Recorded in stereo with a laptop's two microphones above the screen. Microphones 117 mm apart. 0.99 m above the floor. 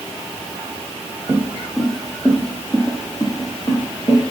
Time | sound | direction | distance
1.3 | footsteps | 20° right (ahead or behind) | 1.8 m